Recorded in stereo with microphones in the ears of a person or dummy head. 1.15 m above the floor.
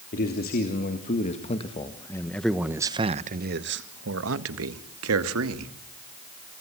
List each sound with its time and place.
0.1 s a man speaking: 45° left (ahead or behind), 3 m; by 5.7 s 80° right, 3 m